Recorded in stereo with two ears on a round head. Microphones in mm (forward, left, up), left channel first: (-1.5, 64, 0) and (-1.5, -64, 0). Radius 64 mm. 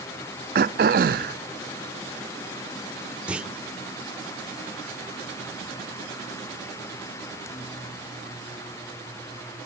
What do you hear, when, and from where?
0.6 s throat clearing: 65° right (ahead or behind), 0.6 m
3.3 s a clunk: 10° right (ahead or behind), 1.4 m